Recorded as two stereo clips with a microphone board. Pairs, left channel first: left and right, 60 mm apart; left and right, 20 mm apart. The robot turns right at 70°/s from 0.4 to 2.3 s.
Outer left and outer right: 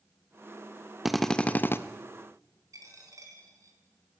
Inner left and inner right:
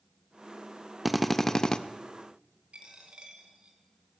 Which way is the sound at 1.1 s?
5° right.